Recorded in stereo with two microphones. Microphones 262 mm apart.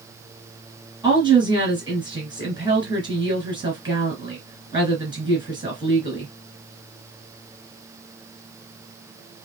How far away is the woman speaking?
About 1.8 m.